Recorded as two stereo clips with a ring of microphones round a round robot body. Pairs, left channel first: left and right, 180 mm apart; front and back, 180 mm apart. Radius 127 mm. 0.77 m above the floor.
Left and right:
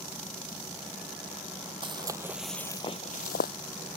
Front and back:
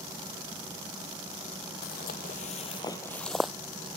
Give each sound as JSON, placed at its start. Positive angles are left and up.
{"t": 1.8, "sound": "footsteps", "azimuth_deg": -35}